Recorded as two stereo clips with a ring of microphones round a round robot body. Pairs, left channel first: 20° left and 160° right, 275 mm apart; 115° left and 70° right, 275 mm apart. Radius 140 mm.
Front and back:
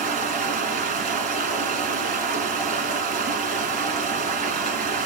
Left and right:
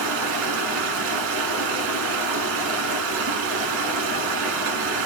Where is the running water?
100° right, 1.2 m.